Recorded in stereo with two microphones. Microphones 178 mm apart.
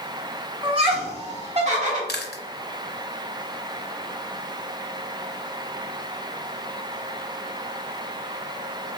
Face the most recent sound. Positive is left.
turn(degrees=65)  # may be behind; listen again after turning